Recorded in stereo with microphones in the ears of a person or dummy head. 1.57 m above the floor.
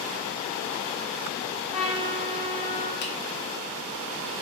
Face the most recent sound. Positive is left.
turn(degrees=55)  # may be behind; listen again after turning